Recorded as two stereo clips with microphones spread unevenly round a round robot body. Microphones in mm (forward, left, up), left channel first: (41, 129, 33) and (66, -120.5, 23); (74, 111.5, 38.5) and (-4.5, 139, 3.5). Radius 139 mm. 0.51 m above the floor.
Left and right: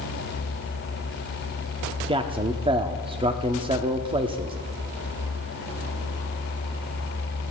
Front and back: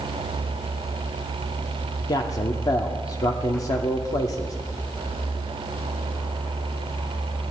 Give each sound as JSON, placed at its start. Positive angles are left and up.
{"t": 2.1, "sound": "a man speaking", "azimuth_deg": -60, "distance_m": 0.8}